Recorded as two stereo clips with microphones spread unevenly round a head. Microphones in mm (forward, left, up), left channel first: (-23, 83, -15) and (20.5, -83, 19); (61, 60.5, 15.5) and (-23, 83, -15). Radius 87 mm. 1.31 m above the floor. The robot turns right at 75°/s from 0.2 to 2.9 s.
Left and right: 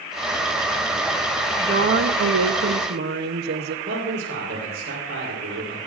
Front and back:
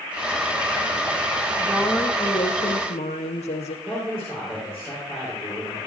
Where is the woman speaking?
135° right, 0.6 m; by 3.8 s 40° right, 0.6 m.